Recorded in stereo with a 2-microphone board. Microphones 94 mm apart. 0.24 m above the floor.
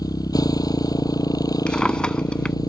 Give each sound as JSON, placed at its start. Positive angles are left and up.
{"t": 0.0, "sound": "a motorcycle", "side_deg": 45}
{"t": 1.7, "sound": "a drawer", "side_deg": 10}